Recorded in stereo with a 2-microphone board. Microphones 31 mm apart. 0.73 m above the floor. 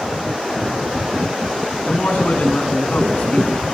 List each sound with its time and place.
1.9 s a man speaking: 55° left (ahead or behind), 8.5 m